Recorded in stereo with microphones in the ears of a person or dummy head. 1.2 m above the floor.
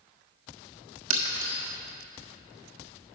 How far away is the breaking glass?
About 1.3 m.